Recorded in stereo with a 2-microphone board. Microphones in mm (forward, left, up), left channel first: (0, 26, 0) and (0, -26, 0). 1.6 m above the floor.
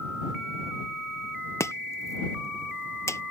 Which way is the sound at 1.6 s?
65° left (ahead or behind).